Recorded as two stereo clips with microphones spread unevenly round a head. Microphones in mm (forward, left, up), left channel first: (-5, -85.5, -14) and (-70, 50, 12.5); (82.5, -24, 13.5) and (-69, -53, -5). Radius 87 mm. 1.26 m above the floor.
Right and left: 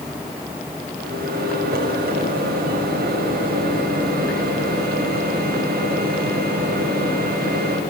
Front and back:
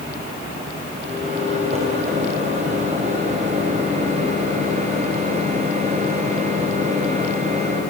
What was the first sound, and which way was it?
A microwave, 135° left.